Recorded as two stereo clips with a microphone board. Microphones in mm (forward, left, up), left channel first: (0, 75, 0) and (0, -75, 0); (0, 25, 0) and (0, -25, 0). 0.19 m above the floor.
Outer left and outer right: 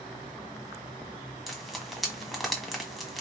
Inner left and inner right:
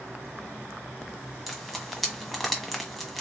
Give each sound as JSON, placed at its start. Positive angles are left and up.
{"t": 1.5, "sound": "frying", "side_deg": 0, "distance_m": 1.5}